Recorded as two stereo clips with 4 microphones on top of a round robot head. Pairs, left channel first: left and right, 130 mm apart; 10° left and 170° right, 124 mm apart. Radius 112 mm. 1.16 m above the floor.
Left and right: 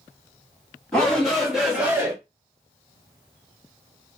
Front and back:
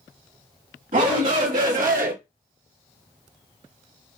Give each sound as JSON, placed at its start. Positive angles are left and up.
{"t": 0.9, "sound": "a shout", "azimuth_deg": 175, "distance_m": 2.5}